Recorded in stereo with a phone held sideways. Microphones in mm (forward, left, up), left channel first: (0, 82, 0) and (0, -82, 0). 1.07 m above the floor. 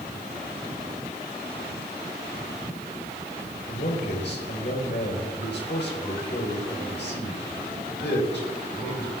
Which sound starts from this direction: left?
A man speaking, at 3.7 s.